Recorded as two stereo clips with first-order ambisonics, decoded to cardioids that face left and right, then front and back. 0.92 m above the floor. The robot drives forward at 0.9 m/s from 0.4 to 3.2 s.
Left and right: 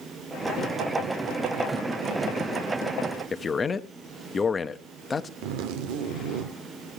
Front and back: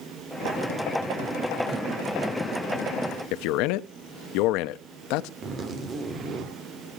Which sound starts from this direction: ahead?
A man speaking, at 3.3 s.